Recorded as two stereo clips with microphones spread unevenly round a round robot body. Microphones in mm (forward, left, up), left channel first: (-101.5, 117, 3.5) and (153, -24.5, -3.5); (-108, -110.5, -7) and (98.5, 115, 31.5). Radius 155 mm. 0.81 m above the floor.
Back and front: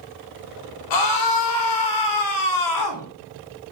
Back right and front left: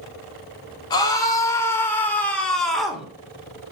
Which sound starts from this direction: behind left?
A scream, at 0.9 s.